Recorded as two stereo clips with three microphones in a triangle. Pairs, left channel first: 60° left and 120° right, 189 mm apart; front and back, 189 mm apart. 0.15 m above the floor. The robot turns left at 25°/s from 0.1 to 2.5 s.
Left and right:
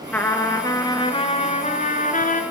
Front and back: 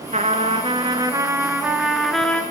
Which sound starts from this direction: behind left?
A trumpet, at 0.1 s.